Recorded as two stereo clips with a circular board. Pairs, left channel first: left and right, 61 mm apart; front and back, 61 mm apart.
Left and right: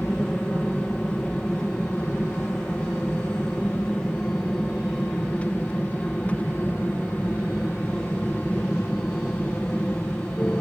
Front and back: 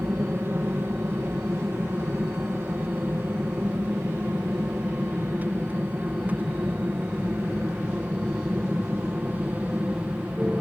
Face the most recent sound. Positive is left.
turn(degrees=130)